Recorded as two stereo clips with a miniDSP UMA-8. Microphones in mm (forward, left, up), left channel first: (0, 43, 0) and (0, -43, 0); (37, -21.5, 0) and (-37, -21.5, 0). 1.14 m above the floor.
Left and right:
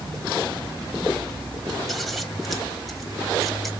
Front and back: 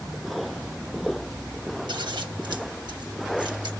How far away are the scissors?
About 1.7 m.